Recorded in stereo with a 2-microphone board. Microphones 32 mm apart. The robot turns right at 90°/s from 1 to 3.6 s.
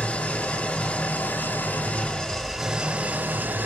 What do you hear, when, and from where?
0.0 s an engine running: 45° left, 1.0 m; by 3.7 s 80° right, 1.0 m